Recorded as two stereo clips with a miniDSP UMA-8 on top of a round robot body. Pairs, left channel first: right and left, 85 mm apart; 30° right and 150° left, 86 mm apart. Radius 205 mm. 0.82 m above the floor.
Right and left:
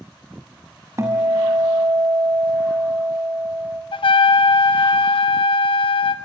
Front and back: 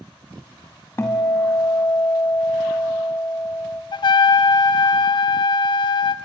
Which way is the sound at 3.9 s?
65° right.